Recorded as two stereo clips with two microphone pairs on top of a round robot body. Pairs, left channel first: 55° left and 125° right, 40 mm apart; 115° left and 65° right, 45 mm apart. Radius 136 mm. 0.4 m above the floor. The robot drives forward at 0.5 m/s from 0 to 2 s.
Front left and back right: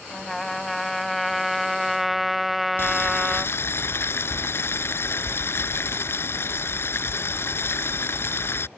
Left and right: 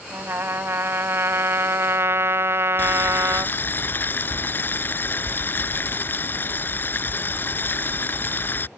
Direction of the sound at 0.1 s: 30° right.